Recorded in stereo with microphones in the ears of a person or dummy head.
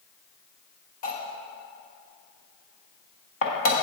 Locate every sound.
1.0 s cutlery clinking: 45° left (ahead or behind), 1.4 m